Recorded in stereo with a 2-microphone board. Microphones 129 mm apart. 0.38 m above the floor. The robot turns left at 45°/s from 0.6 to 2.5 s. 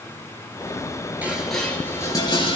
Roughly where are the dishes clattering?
Centre.